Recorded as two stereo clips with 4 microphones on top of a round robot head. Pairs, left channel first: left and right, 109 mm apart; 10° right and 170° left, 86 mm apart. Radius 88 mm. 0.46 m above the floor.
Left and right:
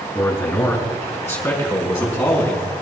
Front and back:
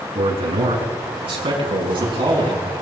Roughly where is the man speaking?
Behind.